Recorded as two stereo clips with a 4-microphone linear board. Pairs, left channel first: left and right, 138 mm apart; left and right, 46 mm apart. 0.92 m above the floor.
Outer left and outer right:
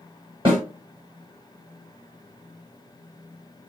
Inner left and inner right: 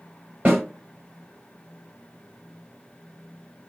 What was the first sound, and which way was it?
A snare drum, 35° right (ahead or behind).